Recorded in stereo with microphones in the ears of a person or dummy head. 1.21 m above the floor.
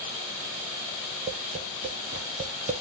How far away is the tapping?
About 0.6 m.